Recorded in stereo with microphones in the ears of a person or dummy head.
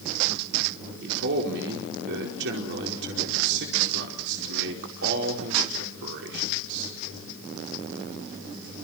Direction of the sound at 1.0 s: 60° right (ahead or behind).